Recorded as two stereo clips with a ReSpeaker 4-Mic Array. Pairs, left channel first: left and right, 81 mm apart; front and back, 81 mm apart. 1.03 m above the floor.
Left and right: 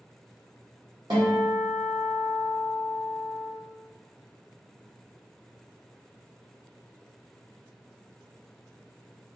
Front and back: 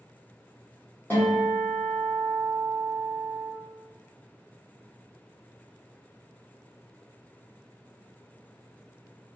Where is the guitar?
70° right, 1.9 m.